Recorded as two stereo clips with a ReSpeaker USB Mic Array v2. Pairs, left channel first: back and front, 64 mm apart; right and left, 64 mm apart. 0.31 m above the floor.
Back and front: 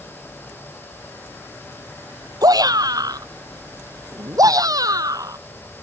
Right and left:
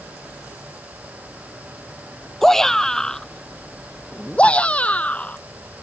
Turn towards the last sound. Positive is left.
turn(degrees=-25)